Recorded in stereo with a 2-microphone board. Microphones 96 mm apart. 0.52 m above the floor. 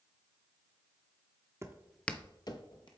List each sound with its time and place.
1.6 s footsteps: 30° right (ahead or behind), 0.7 m; by 2.9 s 55° left (ahead or behind), 1.1 m